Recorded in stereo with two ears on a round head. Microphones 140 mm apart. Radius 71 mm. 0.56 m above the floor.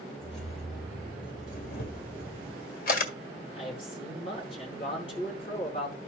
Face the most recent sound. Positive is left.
turn(degrees=35)  # may be behind; listen again after turning